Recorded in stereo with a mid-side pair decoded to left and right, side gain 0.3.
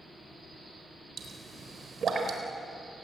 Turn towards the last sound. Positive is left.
turn(degrees=-65)